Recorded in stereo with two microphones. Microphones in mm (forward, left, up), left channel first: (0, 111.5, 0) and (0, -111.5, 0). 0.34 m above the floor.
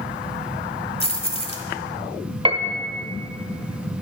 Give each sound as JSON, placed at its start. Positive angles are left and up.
{"t": 1.0, "sound": "keys jangling", "side_deg": 25, "distance_m": 1.3}
{"t": 2.5, "sound": "a piano", "side_deg": -25, "distance_m": 1.0}